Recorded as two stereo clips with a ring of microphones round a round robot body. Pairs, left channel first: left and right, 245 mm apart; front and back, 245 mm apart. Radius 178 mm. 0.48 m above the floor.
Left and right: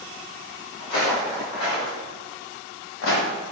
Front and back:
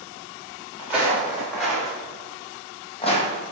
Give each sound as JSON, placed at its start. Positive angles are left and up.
{"t": 0.8, "sound": "footsteps", "azimuth_deg": 95, "distance_m": 1.9}